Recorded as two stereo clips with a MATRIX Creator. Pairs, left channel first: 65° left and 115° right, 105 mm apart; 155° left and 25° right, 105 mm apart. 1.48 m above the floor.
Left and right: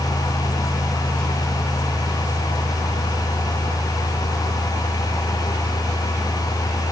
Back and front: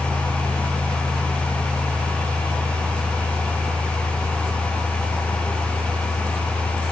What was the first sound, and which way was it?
Only background noise.